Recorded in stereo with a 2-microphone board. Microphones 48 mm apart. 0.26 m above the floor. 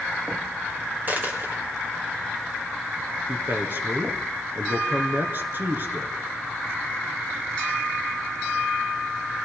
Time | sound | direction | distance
1.1 | a dropped coin | 40° right (ahead or behind) | 3.5 m
3.3 | a man speaking | 45° right (ahead or behind) | 3 m